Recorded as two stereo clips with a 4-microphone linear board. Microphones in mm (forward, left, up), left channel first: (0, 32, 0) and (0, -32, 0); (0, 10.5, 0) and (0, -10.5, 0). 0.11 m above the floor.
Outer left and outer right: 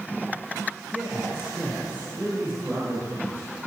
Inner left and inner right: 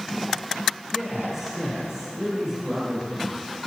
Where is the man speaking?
20° right (ahead or behind), 2.5 m; by 3.5 s 30° right (ahead or behind), 5.5 m.